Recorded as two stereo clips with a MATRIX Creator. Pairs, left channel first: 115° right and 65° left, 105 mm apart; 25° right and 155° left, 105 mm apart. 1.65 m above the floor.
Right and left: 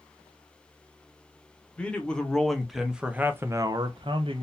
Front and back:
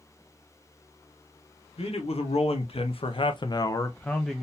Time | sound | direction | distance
1.8 | a man speaking | 35° right | 1.2 m